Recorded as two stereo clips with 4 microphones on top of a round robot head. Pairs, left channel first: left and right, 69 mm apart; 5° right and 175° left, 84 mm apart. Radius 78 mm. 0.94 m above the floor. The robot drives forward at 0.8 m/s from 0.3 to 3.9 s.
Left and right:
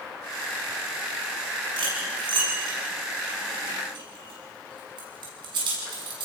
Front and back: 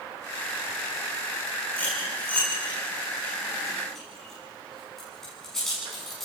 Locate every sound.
1.8 s cutlery clinking: 75° right, 7 m; by 6.2 s 90° right, 7 m